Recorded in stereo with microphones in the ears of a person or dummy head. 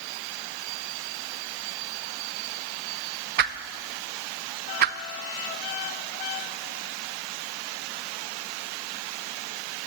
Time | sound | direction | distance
3.4 | a whoosh | 55° right (ahead or behind) | 0.6 m